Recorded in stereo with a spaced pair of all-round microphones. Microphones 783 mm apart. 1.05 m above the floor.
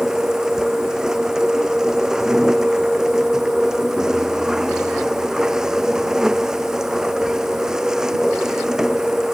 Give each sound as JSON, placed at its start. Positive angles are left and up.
{"t": 0.0, "sound": "a machine running", "side_deg": 0}